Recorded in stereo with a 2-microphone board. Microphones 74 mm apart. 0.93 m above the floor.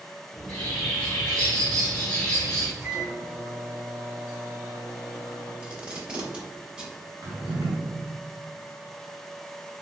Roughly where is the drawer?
Right.